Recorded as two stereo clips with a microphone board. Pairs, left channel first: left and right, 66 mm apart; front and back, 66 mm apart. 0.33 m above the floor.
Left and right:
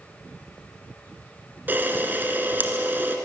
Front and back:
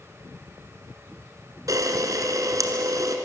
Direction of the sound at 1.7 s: 150° right.